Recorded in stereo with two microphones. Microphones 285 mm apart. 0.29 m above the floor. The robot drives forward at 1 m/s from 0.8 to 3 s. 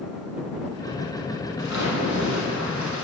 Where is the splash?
75° left (ahead or behind), 5 m; by 3.0 s 85° left, 5 m.